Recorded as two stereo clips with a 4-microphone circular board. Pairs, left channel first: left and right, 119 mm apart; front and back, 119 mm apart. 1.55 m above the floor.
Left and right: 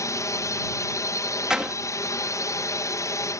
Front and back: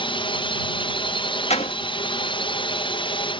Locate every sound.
0.0 s a drone: 30° left
1.5 s a door slam: 5° right